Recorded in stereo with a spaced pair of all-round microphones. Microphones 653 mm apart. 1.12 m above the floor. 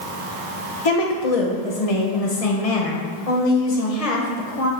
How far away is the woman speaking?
About 1.1 m.